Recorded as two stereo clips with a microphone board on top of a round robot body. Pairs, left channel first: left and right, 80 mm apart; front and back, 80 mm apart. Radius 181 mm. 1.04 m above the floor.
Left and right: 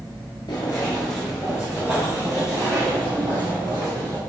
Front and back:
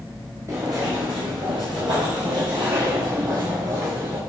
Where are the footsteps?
125° left, 1.2 m; by 4.2 s 130° right, 3.5 m.